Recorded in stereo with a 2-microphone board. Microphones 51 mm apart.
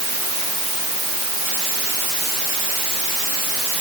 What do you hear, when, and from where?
Only background noise.